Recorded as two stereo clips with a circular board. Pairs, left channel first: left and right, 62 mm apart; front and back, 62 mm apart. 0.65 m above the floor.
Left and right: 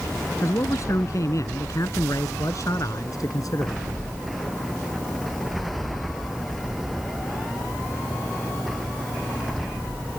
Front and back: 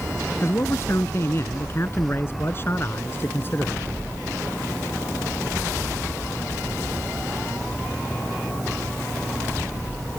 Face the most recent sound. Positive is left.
turn(degrees=60)